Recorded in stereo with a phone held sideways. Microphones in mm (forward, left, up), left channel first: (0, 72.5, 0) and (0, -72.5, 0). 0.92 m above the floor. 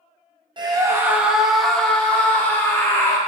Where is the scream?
30° right (ahead or behind), 0.7 m; by 3.2 s 20° left (ahead or behind), 2.0 m.